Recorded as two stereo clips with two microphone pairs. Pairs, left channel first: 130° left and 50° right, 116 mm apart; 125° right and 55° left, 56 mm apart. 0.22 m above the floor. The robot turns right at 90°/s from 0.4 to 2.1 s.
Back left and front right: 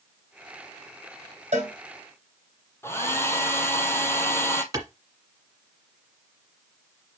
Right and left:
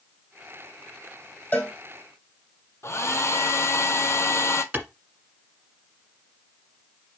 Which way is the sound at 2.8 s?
160° right.